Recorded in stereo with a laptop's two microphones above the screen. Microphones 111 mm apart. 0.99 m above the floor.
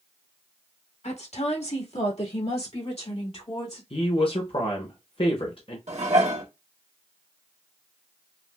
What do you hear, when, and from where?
1.0 s a woman speaking: 75° left (ahead or behind), 1.3 m; by 3.8 s 60° left (ahead or behind), 2.5 m
3.9 s a woman speaking: 55° left (ahead or behind), 0.8 m
5.9 s dishes clattering: 80° right, 1.0 m